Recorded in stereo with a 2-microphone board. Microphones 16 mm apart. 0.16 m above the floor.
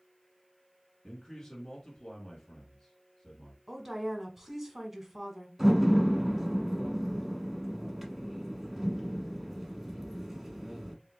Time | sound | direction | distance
1.0 | a man speaking | 40° left (ahead or behind) | 2 m
3.7 | a woman speaking | 15° right (ahead or behind) | 1.1 m
5.6 | a door slam | 10° right (ahead or behind) | 1.0 m